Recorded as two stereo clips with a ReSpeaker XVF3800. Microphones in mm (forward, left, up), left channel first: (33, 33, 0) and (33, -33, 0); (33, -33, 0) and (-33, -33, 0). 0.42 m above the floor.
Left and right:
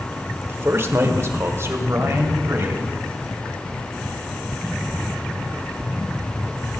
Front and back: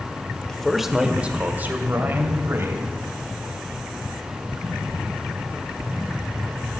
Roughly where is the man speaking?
Right.